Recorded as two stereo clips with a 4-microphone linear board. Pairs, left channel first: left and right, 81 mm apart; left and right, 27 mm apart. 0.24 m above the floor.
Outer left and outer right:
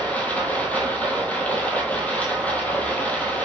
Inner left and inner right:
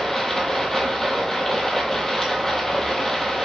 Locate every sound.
0.0 s running water: 20° left (ahead or behind), 0.9 m